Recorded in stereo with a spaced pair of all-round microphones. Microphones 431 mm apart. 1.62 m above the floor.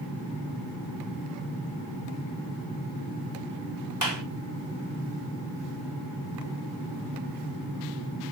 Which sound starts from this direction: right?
A clap, at 4.0 s.